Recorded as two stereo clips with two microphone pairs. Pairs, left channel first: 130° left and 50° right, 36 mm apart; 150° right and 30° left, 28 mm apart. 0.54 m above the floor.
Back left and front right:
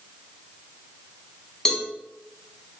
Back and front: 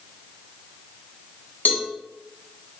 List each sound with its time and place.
1.6 s a cowbell: 150° right, 1.0 m